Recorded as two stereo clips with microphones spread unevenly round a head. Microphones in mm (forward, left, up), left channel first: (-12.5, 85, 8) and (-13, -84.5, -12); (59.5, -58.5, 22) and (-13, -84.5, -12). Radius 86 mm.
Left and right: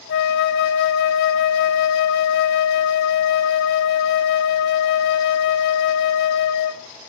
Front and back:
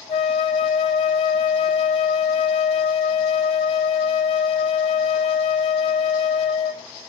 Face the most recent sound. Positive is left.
turn(degrees=60)